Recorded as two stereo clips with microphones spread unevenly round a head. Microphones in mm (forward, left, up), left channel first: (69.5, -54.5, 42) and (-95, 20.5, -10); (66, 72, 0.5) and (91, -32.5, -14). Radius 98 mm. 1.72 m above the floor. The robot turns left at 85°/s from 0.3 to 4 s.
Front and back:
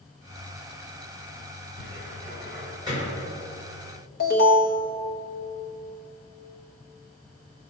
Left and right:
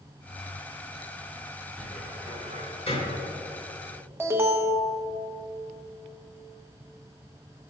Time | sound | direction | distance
1.8 | a cupboard door | 175° left | 3 m
4.2 | an alarm | 5° right | 1.6 m